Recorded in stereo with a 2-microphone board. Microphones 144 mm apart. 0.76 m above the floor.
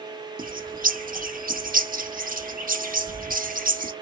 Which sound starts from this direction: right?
A bird, at 0.4 s.